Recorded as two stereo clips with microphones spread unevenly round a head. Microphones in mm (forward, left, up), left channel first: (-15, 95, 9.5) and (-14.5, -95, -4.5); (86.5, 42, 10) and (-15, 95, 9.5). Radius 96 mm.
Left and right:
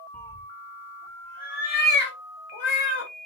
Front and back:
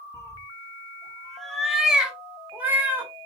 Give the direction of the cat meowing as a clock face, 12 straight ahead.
12 o'clock.